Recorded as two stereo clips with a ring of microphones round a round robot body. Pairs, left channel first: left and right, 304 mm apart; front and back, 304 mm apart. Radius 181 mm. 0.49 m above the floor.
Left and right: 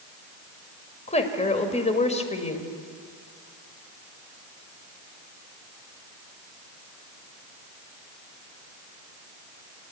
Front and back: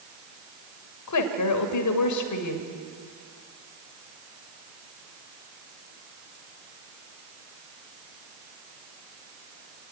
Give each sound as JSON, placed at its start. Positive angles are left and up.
{"t": 1.1, "sound": "a woman speaking", "azimuth_deg": 20, "distance_m": 2.0}